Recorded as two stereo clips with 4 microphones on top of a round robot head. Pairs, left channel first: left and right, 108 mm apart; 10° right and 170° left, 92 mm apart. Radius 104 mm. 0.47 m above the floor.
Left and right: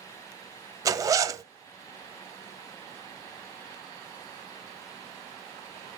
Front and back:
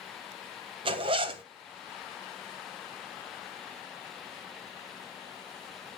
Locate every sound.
0.8 s a zipper: 150° right, 0.6 m